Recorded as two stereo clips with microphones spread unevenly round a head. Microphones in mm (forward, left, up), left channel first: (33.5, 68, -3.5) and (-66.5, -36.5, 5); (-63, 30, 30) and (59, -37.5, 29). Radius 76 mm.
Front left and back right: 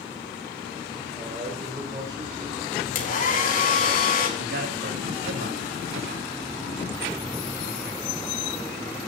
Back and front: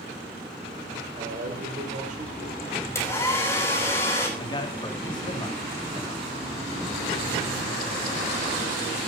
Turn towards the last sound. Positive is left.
turn(degrees=-150)